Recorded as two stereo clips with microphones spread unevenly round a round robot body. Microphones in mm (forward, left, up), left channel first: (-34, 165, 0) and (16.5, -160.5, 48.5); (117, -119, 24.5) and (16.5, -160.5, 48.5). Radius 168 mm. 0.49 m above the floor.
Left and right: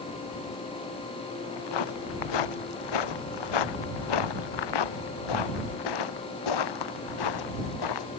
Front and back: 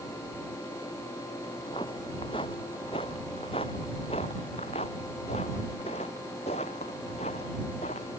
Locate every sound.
1.5 s footsteps: 95° left; by 8.1 s 80° left